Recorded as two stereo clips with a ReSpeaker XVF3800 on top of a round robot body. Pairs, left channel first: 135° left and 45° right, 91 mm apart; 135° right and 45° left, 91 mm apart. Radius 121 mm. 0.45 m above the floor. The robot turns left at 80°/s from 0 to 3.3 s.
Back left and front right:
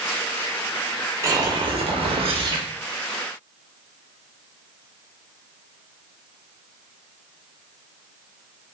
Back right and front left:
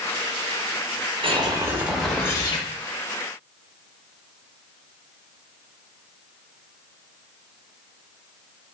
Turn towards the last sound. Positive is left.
turn(degrees=-150)